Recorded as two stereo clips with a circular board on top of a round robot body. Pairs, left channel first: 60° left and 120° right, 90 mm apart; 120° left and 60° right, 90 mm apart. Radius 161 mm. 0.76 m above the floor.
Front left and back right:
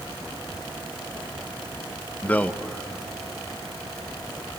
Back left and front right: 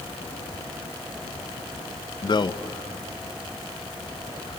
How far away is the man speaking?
About 1.3 m.